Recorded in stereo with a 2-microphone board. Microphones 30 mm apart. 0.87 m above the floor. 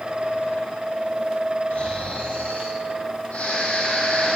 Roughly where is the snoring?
Left.